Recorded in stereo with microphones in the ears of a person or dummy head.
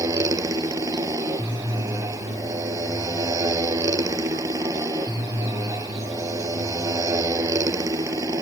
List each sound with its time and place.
0.0 s a motorcycle: 15° right (ahead or behind)